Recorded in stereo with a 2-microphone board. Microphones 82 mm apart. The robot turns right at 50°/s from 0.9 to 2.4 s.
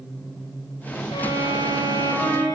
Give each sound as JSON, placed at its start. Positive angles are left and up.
{"t": 1.1, "sound": "a violin", "azimuth_deg": 85, "distance_m": 7.0}